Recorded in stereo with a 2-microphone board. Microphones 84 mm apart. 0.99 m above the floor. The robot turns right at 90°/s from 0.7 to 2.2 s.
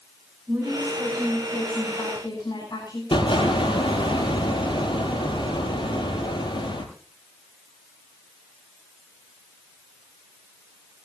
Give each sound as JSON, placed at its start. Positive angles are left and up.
{"t": 0.5, "sound": "a woman speaking", "azimuth_deg": -10, "distance_m": 8.0}
{"t": 3.1, "sound": "an explosion", "side_deg": 85, "distance_m": 5.5}